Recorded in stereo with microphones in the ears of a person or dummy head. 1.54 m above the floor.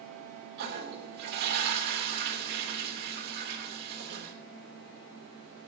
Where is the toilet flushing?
50° right (ahead or behind), 3 m.